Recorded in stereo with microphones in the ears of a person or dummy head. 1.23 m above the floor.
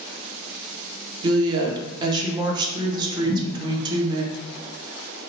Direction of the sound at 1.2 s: 30° right (ahead or behind).